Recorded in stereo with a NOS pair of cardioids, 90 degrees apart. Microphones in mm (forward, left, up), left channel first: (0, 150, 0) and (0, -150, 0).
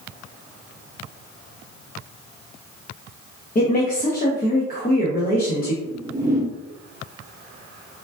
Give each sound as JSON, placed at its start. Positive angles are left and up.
{"t": 3.5, "sound": "a woman speaking", "azimuth_deg": 30, "distance_m": 0.8}
{"t": 5.8, "sound": "a whoosh", "azimuth_deg": -10, "distance_m": 0.7}